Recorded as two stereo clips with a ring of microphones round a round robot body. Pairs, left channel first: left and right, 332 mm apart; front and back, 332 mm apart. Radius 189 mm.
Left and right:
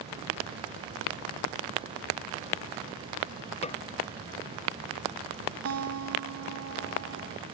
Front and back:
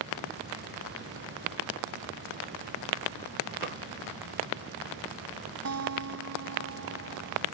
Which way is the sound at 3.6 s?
150° left.